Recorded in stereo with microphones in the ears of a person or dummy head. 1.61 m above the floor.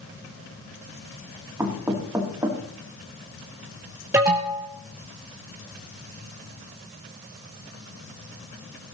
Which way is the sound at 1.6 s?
15° right (ahead or behind).